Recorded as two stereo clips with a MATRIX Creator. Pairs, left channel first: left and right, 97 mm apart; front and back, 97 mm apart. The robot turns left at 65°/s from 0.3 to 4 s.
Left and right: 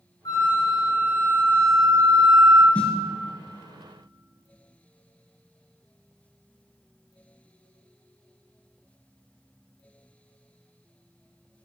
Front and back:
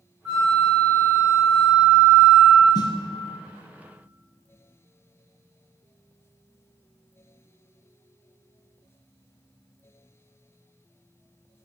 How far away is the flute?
About 2 m.